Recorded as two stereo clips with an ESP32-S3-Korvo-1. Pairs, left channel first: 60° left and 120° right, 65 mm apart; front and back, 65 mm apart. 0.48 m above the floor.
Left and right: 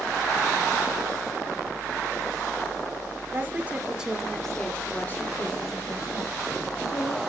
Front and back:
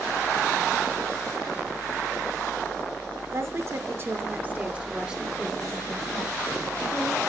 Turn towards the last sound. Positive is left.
turn(degrees=80)